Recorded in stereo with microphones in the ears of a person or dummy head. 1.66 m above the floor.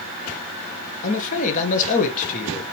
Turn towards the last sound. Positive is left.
turn(degrees=45)  # may be behind; listen again after turning